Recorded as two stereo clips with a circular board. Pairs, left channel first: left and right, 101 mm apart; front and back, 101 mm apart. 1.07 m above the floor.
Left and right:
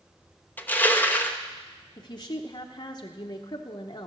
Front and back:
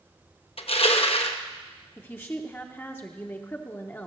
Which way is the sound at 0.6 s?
20° left.